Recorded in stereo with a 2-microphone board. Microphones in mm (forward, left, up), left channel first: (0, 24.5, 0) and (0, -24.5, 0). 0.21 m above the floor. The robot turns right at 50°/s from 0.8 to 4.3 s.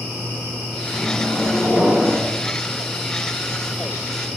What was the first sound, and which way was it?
A microwave, 155° left.